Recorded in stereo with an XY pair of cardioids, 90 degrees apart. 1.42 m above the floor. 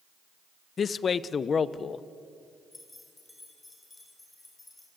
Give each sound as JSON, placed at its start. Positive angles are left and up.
{"t": 0.8, "sound": "a man speaking", "azimuth_deg": 50, "distance_m": 0.9}
{"t": 2.7, "sound": "keys jangling", "azimuth_deg": 20, "distance_m": 5.5}